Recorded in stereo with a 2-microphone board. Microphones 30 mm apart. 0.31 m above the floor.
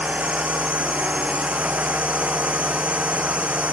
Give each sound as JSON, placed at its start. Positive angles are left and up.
{"t": 0.0, "sound": "a drone", "side_deg": -50}